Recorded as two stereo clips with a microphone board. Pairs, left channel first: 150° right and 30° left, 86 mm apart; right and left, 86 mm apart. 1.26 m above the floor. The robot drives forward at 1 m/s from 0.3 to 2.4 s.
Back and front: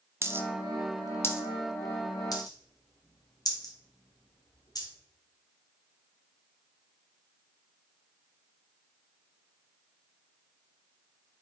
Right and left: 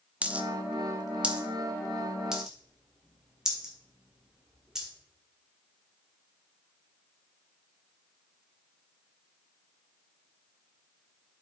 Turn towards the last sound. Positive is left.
turn(degrees=175)